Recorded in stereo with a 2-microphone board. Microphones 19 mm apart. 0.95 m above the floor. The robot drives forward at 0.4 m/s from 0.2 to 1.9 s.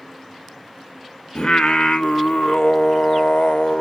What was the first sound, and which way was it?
Singing, 55° left (ahead or behind).